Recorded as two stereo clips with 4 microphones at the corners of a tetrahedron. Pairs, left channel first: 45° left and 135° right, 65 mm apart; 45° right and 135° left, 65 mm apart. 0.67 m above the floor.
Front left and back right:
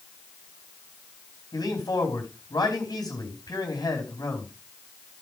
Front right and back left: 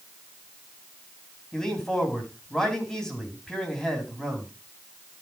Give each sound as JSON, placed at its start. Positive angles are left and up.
{"t": 1.5, "sound": "a man speaking", "azimuth_deg": 35, "distance_m": 4.0}